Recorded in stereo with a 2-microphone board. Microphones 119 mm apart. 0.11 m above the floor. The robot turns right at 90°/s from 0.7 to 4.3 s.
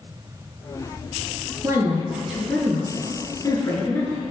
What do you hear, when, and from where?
1.6 s a woman speaking: 30° right (ahead or behind), 1.6 m; by 4.2 s 5° left (ahead or behind), 1.6 m